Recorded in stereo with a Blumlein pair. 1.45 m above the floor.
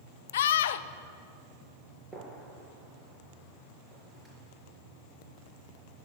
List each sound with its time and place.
0.3 s a scream: 60° left, 0.7 m
2.1 s a gunshot: straight ahead, 5 m